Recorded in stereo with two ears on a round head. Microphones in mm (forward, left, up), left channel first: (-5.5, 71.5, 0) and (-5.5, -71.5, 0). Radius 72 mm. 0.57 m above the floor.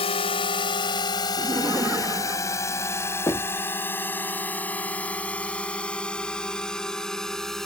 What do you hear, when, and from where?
0.0 s a drone: 35° left (ahead or behind); by 7.7 s centre (ahead or behind)
1.4 s laughter: 15° right (ahead or behind)
3.3 s knocking: 20° left (ahead or behind)